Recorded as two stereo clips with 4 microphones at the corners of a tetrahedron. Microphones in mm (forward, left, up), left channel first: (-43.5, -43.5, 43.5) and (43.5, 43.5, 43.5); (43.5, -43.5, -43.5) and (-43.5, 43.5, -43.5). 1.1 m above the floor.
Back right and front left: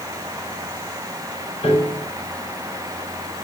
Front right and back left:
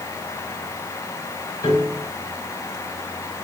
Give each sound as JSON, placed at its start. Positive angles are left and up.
{"t": 1.6, "sound": "a piano", "azimuth_deg": -100, "distance_m": 5.0}